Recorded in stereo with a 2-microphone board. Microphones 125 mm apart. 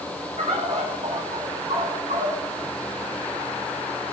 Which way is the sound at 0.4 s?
65° right (ahead or behind).